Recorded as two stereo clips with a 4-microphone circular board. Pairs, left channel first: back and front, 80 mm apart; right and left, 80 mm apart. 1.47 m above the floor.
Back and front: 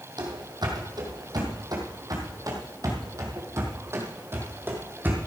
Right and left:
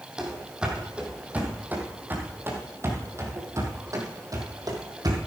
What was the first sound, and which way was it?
Running footsteps, 10° left.